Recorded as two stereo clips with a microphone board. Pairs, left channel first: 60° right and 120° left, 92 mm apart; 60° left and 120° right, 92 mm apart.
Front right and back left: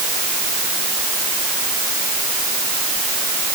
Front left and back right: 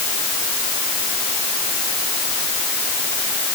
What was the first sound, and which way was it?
Only background noise.